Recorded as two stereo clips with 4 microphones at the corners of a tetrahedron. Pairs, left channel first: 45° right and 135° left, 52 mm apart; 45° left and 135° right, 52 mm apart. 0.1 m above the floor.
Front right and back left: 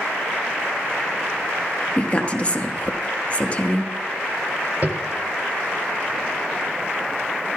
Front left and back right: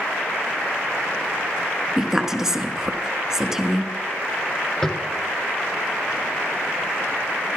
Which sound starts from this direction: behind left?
Tapping, at 4.8 s.